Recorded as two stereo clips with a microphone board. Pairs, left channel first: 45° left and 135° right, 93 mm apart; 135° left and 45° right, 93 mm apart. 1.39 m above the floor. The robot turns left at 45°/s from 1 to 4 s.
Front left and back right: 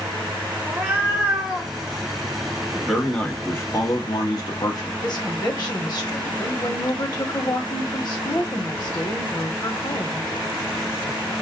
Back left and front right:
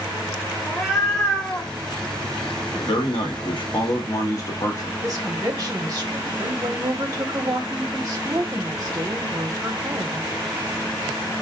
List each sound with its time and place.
0.7 s a cat meowing: 140° right, 0.7 m; by 1.7 s 175° right, 0.7 m
2.8 s a man speaking: 140° left, 0.9 m; by 4.9 s 85° left, 0.9 m
5.0 s a woman speaking: 5° left, 0.9 m